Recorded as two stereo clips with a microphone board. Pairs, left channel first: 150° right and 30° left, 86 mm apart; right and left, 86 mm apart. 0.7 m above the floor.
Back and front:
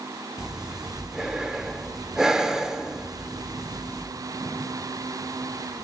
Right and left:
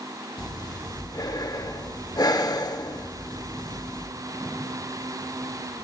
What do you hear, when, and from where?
0.4 s breathing: 50° right, 0.5 m